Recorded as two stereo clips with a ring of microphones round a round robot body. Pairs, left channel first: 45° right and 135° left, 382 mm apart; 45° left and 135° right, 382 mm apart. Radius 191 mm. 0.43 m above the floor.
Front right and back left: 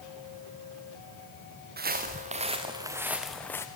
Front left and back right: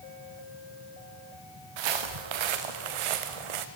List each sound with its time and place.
1.8 s footsteps: 160° right, 2.5 m; by 3.7 s 130° right, 1.8 m